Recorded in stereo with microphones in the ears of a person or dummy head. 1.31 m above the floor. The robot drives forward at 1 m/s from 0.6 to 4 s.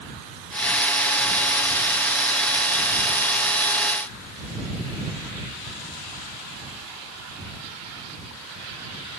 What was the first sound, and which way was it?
Only background noise.